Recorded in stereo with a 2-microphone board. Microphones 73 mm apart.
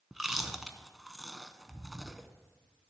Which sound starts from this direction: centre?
Chewing, at 0.1 s.